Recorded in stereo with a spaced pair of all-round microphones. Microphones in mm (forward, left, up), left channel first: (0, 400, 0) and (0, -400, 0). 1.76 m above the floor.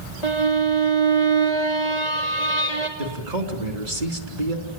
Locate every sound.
0.2 s a violin: 55° left (ahead or behind), 3 m
3.0 s a man speaking: 60° right (ahead or behind), 3.5 m